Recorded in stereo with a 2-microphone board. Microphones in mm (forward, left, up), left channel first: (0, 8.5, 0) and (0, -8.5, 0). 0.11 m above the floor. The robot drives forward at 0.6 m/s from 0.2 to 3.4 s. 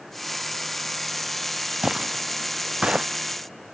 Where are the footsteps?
40° right (ahead or behind); by 3.1 s 85° right.